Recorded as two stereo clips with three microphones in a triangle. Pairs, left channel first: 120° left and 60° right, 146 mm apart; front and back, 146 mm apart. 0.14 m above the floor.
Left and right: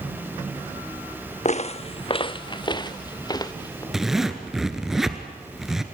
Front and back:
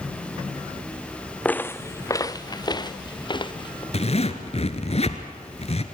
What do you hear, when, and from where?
1.4 s footsteps: 80° left, 0.6 m; by 3.8 s 55° left, 1.7 m
3.9 s a zipper: 25° left, 1.6 m